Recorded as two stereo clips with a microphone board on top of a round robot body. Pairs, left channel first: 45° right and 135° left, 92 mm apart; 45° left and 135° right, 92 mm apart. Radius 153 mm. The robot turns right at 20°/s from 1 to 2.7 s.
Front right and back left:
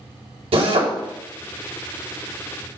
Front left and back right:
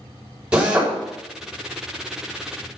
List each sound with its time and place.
0.5 s a drill: 145° left, 4 m